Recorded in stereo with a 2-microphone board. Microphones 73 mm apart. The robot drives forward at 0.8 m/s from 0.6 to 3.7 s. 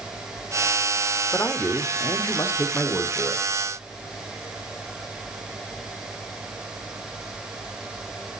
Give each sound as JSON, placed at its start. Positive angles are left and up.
{"t": 1.3, "sound": "a man speaking", "side_deg": 25, "distance_m": 1.0}